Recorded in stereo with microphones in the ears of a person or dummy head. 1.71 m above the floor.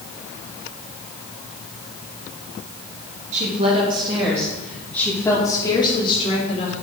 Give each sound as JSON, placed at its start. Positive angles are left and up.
{"t": 3.3, "sound": "a woman speaking", "side_deg": -45, "distance_m": 3.5}